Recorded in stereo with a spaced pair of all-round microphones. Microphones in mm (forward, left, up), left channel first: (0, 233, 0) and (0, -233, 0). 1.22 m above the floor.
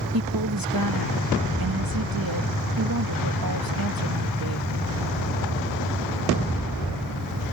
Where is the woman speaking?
45° right (ahead or behind).